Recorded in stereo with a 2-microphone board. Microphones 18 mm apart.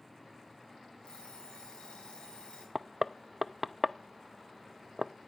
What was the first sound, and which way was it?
An alarm clock, 80° left.